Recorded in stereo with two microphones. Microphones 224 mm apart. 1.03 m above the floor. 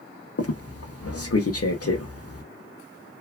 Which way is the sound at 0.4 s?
75° left (ahead or behind).